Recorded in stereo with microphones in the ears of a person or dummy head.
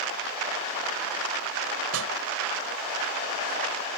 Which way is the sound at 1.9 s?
75° right (ahead or behind).